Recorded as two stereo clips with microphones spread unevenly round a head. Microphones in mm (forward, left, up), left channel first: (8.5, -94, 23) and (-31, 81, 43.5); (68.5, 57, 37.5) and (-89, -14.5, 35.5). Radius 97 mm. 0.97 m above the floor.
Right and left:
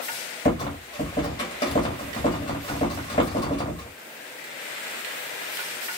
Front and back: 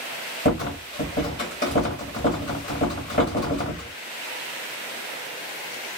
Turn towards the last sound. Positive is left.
turn(degrees=-10)